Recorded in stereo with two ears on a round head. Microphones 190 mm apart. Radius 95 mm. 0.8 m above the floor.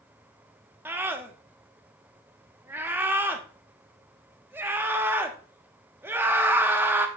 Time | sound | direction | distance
0.8 | a scream | 10° right (ahead or behind) | 1.1 m